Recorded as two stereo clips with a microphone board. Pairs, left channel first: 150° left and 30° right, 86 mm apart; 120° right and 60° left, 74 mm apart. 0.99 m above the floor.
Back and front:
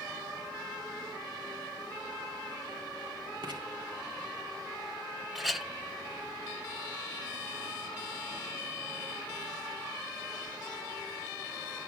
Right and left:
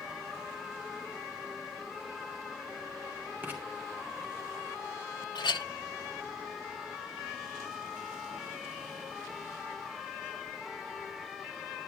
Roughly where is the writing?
Ahead.